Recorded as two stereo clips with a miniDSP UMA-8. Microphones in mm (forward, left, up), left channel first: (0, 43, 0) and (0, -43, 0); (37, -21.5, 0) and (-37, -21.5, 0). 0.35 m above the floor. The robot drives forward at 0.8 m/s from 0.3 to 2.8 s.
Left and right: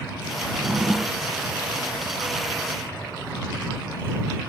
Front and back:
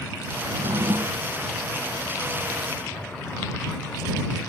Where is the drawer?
170° right; by 1.3 s 175° right.